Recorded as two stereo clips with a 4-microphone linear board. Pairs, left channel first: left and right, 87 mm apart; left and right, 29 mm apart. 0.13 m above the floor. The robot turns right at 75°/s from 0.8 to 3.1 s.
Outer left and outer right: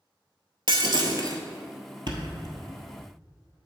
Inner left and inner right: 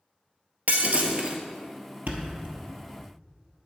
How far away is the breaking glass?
About 0.9 m.